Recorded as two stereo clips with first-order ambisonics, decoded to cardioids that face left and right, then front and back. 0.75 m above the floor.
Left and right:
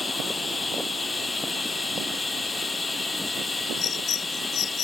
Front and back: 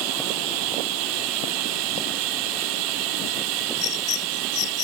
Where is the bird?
35° left.